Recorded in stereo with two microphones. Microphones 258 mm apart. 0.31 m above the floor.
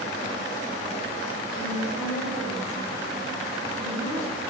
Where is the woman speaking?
15° left (ahead or behind), 8 m.